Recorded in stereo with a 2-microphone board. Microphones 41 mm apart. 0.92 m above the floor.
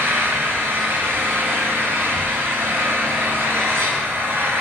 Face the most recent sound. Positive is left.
turn(degrees=-85)